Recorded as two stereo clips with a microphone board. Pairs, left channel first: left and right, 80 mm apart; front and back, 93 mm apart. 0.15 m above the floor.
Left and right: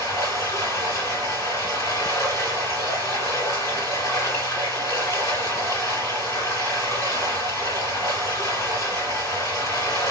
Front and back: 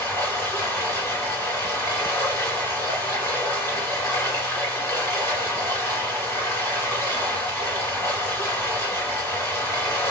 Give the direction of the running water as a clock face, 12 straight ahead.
10 o'clock.